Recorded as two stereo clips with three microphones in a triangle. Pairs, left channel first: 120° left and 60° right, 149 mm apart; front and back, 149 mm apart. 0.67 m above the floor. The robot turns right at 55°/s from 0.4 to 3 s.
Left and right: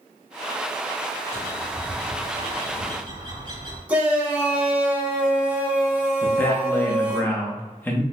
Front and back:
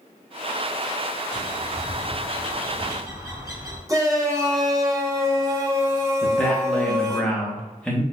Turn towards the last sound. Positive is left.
turn(degrees=65)